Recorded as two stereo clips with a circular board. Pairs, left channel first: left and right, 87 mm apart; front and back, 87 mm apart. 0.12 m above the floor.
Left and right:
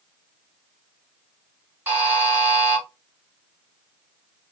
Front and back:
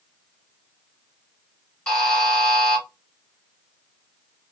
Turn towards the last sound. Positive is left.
turn(degrees=-70)